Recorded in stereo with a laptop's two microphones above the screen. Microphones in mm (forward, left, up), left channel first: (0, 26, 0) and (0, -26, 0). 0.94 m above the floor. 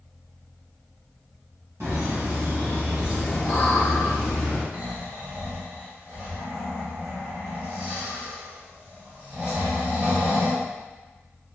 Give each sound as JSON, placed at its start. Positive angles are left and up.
{"t": 1.8, "sound": "laughter", "side_deg": -55, "distance_m": 1.2}
{"t": 4.7, "sound": "snoring", "side_deg": -30, "distance_m": 1.3}